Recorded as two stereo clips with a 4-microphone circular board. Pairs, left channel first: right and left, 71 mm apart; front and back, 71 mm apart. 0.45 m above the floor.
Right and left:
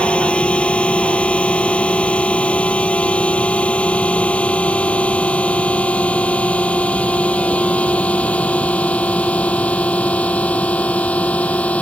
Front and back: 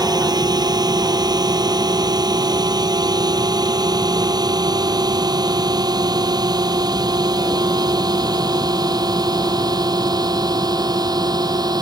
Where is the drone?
165° right; by 11.8 s 160° right.